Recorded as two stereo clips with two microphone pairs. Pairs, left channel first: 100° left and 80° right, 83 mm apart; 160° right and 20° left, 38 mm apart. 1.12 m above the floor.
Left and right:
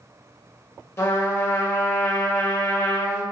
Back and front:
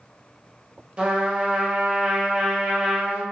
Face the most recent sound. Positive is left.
turn(degrees=65)